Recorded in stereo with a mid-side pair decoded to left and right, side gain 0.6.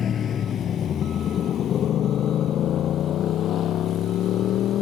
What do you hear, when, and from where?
0.0 s a motorcycle: 40° left; by 4.8 s 55° left